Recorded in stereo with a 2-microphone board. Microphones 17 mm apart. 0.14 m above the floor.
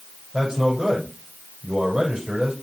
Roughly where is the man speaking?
Right.